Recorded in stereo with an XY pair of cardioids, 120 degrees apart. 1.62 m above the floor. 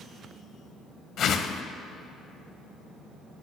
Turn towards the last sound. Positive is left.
turn(degrees=55)